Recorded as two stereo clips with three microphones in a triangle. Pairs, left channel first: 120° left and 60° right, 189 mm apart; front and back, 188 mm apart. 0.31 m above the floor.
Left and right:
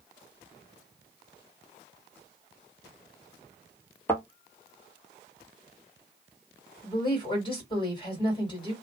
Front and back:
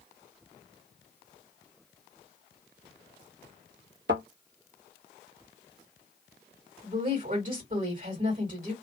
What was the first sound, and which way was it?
A thud, 165° right.